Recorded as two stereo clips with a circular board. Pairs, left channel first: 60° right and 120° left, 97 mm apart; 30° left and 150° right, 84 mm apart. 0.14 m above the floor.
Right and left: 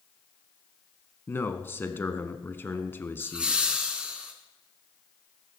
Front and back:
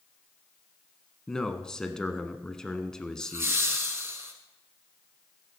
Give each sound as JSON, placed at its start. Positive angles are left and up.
{"t": 1.3, "sound": "a man speaking", "azimuth_deg": -40, "distance_m": 1.1}
{"t": 3.2, "sound": "laughter", "azimuth_deg": -170, "distance_m": 1.3}